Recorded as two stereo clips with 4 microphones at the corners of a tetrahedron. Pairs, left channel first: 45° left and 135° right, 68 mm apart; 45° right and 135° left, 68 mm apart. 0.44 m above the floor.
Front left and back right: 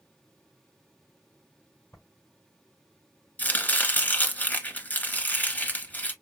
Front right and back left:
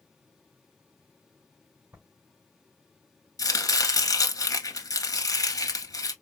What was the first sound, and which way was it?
Writing, 80° left.